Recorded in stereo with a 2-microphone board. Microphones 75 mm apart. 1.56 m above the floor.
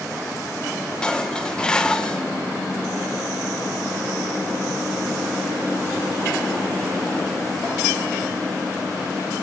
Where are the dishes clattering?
15° left (ahead or behind), 0.7 m.